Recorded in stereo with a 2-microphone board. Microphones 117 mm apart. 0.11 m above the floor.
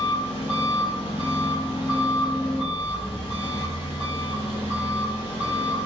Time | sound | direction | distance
0.0 | an engine running | 50° left (ahead or behind) | 1.6 m